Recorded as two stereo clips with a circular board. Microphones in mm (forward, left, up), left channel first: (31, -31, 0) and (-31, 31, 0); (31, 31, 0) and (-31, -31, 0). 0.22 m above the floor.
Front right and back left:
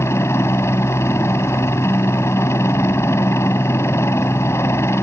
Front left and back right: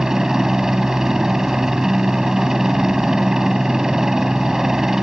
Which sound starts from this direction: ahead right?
A helicopter, at 0.0 s.